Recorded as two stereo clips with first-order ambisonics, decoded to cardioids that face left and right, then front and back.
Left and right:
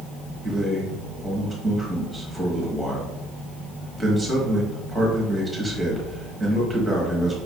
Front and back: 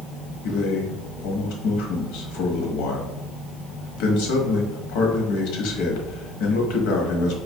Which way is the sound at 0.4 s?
5° left.